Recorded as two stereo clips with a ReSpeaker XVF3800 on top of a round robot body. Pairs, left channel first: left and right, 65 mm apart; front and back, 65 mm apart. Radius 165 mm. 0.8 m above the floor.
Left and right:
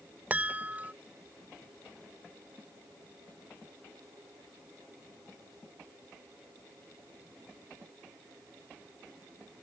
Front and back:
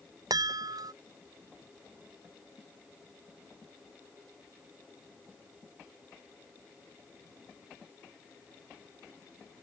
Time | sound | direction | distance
0.3 | a chime | 160° right | ?